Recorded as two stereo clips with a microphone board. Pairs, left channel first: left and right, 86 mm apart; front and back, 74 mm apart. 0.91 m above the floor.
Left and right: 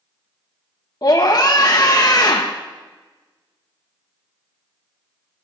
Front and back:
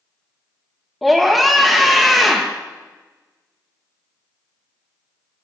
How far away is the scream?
About 1.0 m.